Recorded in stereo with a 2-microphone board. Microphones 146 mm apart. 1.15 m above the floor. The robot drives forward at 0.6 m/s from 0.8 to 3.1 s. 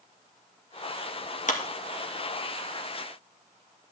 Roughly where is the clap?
Left.